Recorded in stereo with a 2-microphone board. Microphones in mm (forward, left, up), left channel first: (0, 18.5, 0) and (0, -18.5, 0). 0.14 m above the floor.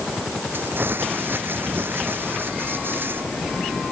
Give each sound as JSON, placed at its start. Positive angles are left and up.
{"t": 0.5, "sound": "crumpling", "side_deg": -70}